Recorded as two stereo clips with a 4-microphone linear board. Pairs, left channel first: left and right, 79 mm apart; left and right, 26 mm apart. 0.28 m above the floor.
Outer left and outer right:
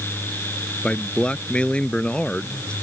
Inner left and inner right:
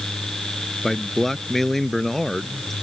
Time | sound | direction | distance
0.8 | a man speaking | 10° left (ahead or behind) | ?